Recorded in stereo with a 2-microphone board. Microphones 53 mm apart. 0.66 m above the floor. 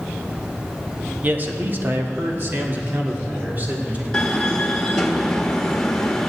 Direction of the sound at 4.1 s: 10° left (ahead or behind).